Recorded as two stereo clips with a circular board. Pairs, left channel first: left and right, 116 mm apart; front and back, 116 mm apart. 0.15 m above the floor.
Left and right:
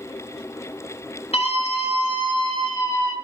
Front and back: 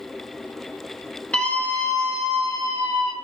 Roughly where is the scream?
Left.